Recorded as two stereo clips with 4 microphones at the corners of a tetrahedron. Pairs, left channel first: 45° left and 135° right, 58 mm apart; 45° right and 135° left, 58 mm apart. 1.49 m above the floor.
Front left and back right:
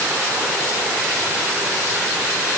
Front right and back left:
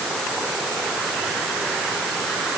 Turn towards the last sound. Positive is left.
No sound to turn to.